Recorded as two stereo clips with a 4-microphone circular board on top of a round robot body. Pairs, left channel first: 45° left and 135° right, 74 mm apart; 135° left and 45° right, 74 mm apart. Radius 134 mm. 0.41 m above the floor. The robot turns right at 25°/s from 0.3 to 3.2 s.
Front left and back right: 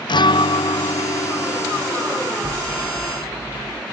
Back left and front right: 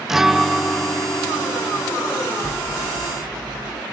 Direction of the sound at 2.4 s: 110° right.